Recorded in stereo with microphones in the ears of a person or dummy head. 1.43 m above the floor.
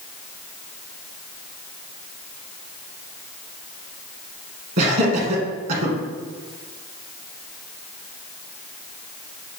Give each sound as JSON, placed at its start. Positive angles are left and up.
{"t": 4.8, "sound": "laughter", "side_deg": -55, "distance_m": 1.4}